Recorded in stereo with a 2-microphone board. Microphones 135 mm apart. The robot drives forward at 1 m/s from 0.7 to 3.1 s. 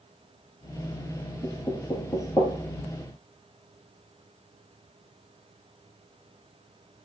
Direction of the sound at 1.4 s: 35° left (ahead or behind).